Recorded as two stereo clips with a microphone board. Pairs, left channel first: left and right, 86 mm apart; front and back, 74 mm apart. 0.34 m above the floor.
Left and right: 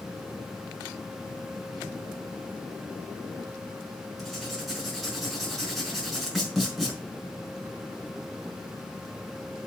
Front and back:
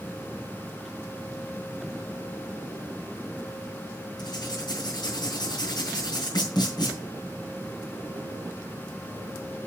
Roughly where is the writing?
Ahead.